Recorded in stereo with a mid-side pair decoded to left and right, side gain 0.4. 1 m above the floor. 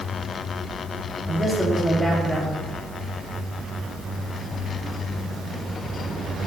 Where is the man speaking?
15° right, 3 m.